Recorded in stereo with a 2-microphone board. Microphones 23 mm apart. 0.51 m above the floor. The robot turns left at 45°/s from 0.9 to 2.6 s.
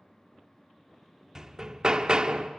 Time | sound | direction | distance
1.4 | hammering | 30° right | 0.7 m